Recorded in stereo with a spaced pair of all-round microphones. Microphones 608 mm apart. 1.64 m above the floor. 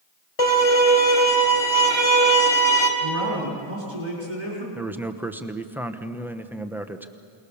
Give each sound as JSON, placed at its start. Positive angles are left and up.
{"t": 0.4, "sound": "a violin", "side_deg": 65, "distance_m": 3.0}
{"t": 3.0, "sound": "a man speaking", "side_deg": -50, "distance_m": 5.5}
{"t": 4.8, "sound": "a man speaking", "side_deg": -5, "distance_m": 1.0}